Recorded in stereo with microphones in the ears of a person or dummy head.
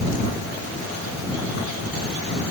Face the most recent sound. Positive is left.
No sound to turn to.